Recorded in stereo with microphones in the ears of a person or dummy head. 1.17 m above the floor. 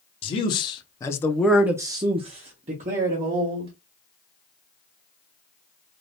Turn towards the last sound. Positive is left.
turn(degrees=-35)  # may be behind; listen again after turning